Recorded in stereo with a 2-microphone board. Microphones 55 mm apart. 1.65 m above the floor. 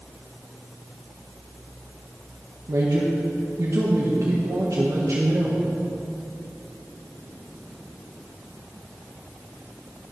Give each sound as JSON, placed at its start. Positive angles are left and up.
{"t": 2.7, "sound": "a man speaking", "side_deg": -70, "distance_m": 1.5}